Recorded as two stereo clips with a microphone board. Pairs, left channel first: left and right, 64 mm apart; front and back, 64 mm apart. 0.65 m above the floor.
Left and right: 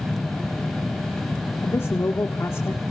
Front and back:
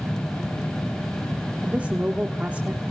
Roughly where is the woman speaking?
Behind left.